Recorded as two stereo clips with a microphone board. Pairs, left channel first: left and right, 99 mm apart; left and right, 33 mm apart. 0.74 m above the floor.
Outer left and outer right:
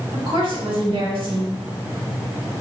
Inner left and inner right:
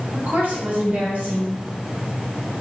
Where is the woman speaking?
60° right (ahead or behind), 1.8 m.